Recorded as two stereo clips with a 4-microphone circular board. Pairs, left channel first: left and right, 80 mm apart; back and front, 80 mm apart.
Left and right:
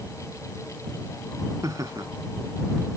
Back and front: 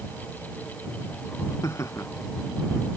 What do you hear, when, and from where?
1.6 s laughter: 130° right